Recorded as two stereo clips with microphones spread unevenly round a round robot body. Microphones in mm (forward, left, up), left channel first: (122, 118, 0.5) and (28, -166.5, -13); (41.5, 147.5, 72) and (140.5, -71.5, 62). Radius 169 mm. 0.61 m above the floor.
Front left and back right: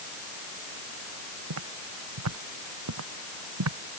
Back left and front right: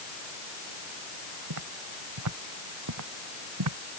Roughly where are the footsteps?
Right.